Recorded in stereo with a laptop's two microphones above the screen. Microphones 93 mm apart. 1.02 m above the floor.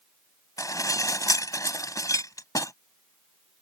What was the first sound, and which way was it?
Dishes clattering, 40° left (ahead or behind).